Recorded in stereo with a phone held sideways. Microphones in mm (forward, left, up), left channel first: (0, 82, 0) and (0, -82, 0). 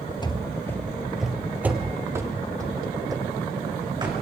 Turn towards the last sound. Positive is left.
turn(degrees=-25)  # may be behind; listen again after turning